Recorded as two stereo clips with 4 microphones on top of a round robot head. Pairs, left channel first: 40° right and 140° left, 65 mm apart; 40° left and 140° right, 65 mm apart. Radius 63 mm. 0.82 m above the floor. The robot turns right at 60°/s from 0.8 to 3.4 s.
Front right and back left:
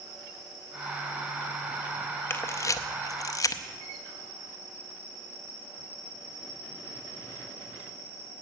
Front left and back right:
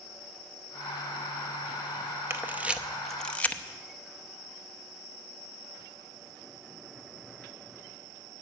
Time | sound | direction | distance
2.3 | a camera shutter | 90° right | 0.7 m